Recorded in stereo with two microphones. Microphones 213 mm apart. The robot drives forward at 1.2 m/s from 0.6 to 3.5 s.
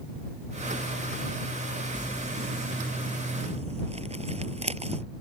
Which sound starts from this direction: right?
Crumpling, at 1.9 s.